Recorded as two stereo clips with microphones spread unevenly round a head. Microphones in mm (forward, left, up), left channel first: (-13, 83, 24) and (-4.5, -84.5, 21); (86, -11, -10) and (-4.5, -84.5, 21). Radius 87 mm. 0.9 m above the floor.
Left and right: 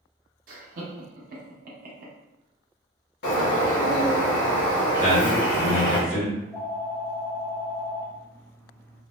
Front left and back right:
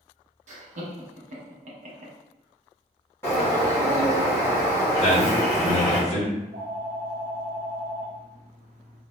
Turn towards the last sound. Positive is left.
turn(degrees=170)